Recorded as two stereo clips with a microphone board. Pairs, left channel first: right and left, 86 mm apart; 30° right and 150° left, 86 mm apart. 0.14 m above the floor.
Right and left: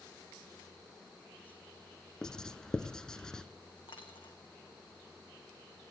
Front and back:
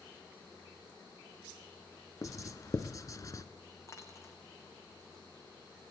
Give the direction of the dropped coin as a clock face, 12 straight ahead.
3 o'clock.